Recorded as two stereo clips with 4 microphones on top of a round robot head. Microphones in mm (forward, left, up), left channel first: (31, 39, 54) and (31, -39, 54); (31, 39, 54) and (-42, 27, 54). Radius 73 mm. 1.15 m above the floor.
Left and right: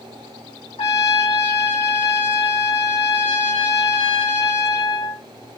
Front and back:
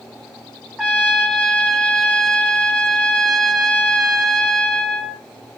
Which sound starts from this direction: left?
A trumpet, at 0.8 s.